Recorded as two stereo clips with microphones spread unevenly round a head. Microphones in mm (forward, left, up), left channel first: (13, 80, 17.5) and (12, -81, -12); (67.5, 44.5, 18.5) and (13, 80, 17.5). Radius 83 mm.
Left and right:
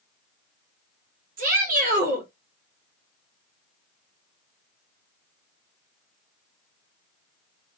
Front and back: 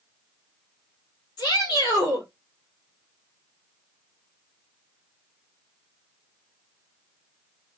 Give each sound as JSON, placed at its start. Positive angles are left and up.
{"t": 1.4, "sound": "a shout", "azimuth_deg": -55, "distance_m": 1.9}